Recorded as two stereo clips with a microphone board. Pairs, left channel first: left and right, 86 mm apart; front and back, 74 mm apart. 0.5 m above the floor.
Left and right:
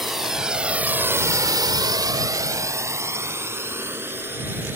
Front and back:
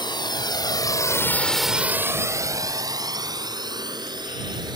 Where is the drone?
5° right; by 4.8 s 155° right.